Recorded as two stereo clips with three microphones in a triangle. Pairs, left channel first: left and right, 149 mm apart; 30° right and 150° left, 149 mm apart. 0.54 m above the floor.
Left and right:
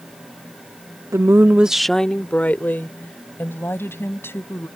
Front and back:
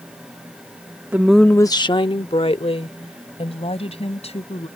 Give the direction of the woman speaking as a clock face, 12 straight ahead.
5 o'clock.